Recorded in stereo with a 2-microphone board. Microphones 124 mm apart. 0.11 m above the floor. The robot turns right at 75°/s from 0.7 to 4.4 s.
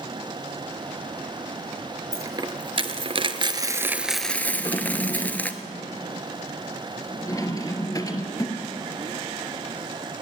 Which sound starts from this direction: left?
A drawer, at 4.5 s.